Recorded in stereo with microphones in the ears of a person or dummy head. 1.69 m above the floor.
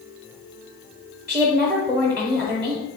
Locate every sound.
1.3 s a woman speaking: 5° right (ahead or behind), 0.8 m